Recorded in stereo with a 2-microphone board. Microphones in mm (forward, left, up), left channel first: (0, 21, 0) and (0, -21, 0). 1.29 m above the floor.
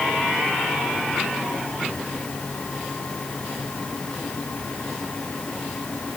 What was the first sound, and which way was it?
Only background noise.